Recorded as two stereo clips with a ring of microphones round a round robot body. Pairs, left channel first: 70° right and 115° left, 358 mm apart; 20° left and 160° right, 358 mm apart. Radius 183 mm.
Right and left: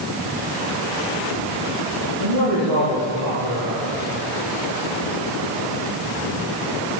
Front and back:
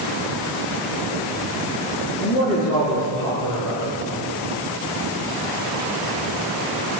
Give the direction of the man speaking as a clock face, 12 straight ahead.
10 o'clock.